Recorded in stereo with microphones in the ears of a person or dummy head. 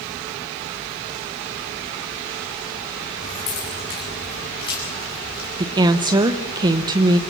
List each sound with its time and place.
3.2 s keys jangling: 35° left (ahead or behind), 7.5 m; by 5.5 s 20° left (ahead or behind), 6.5 m
5.6 s a woman speaking: 25° right (ahead or behind), 1.0 m